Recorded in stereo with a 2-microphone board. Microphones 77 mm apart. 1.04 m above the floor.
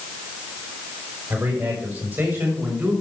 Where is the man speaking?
35° right (ahead or behind), 5 m; by 2.9 s 25° right (ahead or behind), 5.5 m.